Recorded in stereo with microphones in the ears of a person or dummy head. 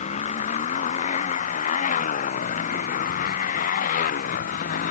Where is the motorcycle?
45° left (ahead or behind); by 4.9 s 50° left (ahead or behind).